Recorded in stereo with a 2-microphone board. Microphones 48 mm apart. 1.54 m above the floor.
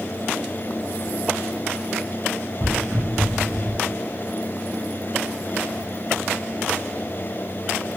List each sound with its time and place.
2.6 s footsteps: 5° right (ahead or behind), 1.6 m; by 3.8 s centre (ahead or behind), 1.7 m